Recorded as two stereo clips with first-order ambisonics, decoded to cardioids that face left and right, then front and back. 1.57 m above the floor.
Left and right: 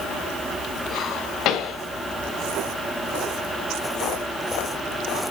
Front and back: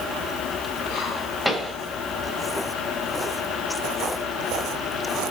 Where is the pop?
90° left, 1.7 m.